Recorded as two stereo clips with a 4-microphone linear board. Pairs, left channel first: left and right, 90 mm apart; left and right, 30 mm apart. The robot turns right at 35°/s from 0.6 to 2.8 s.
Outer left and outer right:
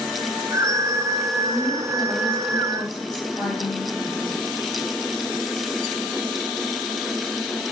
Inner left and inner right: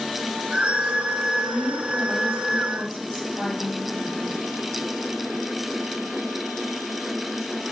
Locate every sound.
1.4 s a woman speaking: 85° left, 4 m; by 4.4 s 135° left, 4 m